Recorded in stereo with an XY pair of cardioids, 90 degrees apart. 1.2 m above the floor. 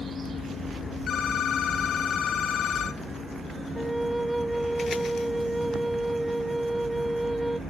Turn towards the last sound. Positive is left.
turn(degrees=-10)